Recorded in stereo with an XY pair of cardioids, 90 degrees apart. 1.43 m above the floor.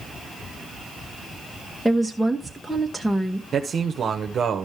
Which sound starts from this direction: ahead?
A woman speaking, at 1.9 s.